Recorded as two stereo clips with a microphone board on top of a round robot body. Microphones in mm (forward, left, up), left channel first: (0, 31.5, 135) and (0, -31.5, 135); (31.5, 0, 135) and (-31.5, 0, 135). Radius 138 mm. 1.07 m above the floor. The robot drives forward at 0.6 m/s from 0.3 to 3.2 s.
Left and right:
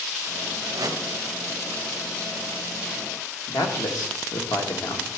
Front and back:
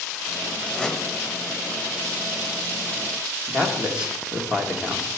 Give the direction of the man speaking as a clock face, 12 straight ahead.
8 o'clock.